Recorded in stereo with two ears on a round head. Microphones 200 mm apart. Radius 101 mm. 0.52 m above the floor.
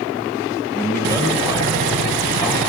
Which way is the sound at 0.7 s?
10° left (ahead or behind).